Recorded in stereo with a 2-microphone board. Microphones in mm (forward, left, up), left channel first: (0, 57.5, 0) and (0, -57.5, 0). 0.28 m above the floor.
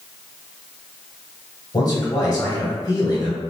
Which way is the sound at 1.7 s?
35° left (ahead or behind).